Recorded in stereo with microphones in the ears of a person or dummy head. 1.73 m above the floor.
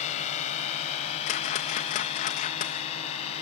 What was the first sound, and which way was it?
A drone, 40° left (ahead or behind).